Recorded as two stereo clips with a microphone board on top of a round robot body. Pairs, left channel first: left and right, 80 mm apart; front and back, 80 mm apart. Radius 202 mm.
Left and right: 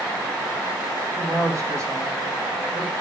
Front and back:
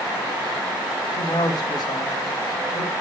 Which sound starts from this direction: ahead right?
A woman speaking, at 1.1 s.